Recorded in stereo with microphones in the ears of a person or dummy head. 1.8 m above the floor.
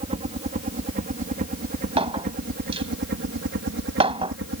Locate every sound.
0.0 s a helicopter: 40° right (ahead or behind); by 4.6 s 60° right (ahead or behind)
2.0 s a clink: 30° right (ahead or behind)